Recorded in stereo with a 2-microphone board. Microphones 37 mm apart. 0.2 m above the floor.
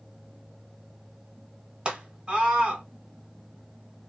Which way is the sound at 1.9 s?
30° right (ahead or behind).